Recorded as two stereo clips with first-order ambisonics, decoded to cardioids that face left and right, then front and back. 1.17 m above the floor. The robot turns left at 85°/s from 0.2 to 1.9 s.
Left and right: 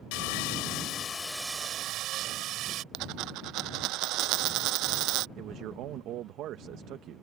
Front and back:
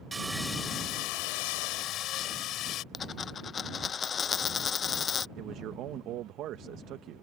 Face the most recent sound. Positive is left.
turn(degrees=-135)